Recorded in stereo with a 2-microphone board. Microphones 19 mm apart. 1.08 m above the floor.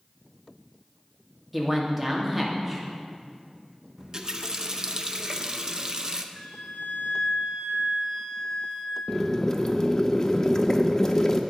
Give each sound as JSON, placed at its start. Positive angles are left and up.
{"t": 1.5, "sound": "a man speaking", "side_deg": -5, "distance_m": 2.0}
{"t": 4.0, "sound": "a running tap", "side_deg": -35, "distance_m": 0.6}
{"t": 6.3, "sound": "a flute", "side_deg": 40, "distance_m": 3.5}
{"t": 9.1, "sound": "boiling", "side_deg": 25, "distance_m": 0.6}